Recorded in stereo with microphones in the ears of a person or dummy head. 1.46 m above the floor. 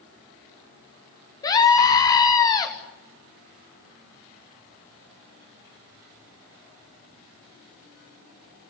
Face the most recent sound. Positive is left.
turn(degrees=20)  # may be behind; listen again after turning